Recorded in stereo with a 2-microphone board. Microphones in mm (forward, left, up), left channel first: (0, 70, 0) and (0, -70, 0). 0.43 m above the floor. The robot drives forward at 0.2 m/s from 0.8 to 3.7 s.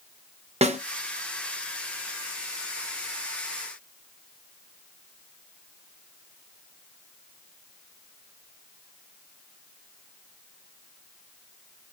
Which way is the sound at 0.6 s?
45° right (ahead or behind).